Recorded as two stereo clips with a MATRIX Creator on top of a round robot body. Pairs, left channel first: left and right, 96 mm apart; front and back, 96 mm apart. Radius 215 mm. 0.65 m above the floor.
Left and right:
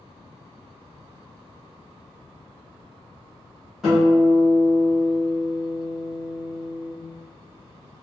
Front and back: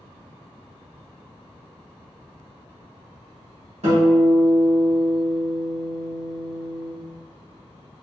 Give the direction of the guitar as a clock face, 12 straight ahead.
6 o'clock.